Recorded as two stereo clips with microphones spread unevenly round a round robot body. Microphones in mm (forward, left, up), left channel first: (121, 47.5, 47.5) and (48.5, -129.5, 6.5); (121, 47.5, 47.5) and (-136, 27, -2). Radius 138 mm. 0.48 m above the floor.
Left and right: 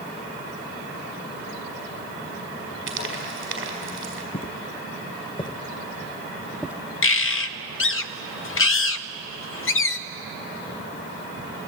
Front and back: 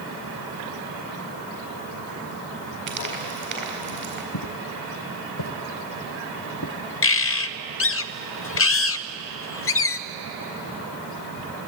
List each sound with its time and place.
2.9 s frying: 110° right, 4.5 m
4.3 s footsteps: 15° left, 1.8 m; by 6.8 s 25° right, 0.9 m
7.0 s a bird: 50° left, 0.7 m